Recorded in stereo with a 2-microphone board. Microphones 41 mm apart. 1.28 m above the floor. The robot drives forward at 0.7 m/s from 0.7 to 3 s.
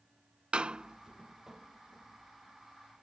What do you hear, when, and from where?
0.5 s a door slam: 25° right (ahead or behind); by 3.0 s 5° right (ahead or behind)